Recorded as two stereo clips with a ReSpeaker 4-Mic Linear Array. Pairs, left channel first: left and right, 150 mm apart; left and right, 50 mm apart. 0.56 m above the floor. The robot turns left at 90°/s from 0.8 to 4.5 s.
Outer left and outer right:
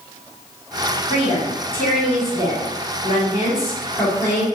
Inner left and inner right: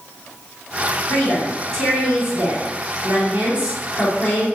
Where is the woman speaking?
75° left, 1.5 m; by 4.5 s 135° left, 1.5 m.